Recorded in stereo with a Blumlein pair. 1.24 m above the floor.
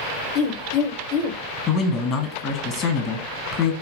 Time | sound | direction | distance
0.3 | a woman speaking | 35° left | 0.6 m
1.7 | a man speaking | 30° left | 0.9 m